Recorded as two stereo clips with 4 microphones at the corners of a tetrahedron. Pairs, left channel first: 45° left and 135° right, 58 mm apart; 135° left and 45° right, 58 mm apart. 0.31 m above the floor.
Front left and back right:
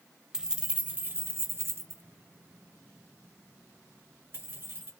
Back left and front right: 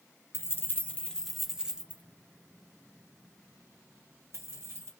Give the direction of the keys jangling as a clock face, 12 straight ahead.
7 o'clock.